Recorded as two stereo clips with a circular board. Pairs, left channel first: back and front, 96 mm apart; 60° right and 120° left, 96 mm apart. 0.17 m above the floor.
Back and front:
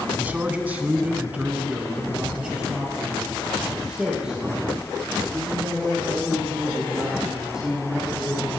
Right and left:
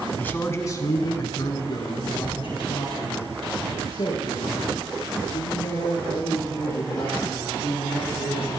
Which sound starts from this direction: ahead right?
A man speaking, at 0.2 s.